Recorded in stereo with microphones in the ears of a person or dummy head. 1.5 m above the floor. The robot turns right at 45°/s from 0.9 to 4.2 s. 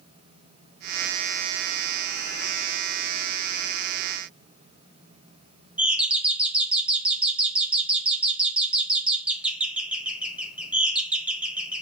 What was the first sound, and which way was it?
A doorbell, 5° right (ahead or behind).